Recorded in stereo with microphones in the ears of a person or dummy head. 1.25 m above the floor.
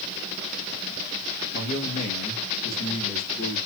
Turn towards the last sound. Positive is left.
turn(degrees=60)  # may be behind; listen again after turning